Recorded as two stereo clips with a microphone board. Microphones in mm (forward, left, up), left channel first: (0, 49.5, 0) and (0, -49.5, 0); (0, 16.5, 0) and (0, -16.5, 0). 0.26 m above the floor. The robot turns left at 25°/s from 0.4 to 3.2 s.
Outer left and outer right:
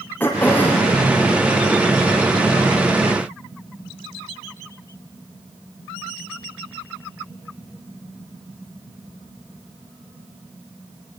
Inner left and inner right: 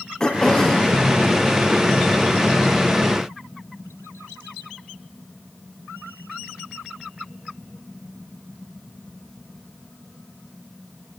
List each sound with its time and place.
0.2 s throat clearing: 20° left (ahead or behind), 3.5 m; by 0.9 s 5° left (ahead or behind), 3.5 m